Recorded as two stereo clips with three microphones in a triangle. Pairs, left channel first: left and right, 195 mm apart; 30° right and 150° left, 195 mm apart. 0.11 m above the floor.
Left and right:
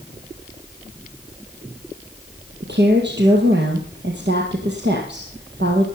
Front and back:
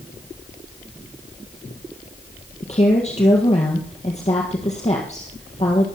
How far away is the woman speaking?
About 3 m.